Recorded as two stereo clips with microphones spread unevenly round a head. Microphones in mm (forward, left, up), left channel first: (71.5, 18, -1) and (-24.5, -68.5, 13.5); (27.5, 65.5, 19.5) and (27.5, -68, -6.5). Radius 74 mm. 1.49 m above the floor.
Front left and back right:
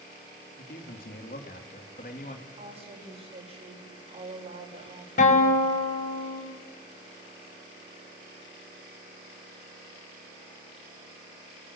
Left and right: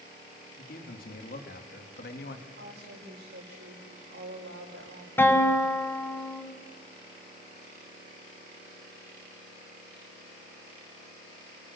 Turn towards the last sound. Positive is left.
turn(degrees=15)